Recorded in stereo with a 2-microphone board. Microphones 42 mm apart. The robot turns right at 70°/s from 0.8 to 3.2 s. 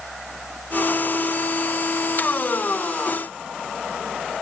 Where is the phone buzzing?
I don't hear a phone buzzing.